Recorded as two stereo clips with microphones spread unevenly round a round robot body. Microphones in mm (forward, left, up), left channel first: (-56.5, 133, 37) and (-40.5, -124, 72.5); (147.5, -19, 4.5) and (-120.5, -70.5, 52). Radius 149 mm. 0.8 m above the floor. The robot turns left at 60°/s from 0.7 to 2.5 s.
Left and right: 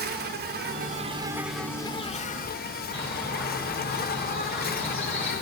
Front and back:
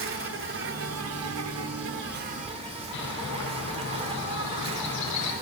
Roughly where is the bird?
Ahead.